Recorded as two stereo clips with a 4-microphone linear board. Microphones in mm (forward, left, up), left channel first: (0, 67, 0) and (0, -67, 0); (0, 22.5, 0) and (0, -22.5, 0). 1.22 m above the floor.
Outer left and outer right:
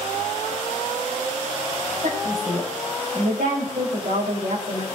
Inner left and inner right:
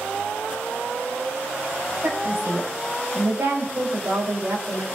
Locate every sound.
2.0 s a woman speaking: 80° right, 6 m; by 4.8 s 65° right (ahead or behind), 4.5 m